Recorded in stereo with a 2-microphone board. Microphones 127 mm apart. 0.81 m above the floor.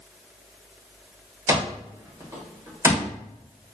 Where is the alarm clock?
25° right (ahead or behind), 1.3 m.